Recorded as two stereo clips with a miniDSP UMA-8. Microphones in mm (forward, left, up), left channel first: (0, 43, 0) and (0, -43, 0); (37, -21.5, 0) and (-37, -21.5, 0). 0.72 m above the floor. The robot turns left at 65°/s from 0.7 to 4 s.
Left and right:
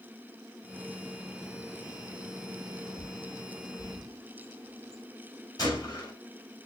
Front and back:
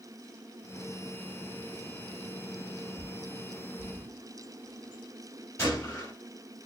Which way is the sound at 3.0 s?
115° left.